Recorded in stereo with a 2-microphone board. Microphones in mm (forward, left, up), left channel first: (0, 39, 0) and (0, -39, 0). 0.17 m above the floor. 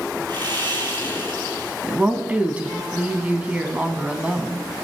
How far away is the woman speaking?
About 1.1 m.